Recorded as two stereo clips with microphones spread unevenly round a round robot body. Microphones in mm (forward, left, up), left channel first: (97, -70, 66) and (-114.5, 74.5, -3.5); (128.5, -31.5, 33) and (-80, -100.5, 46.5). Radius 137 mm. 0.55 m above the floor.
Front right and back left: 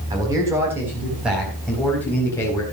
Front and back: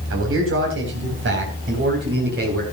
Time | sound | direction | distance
0.1 | a man speaking | 145° right | 4 m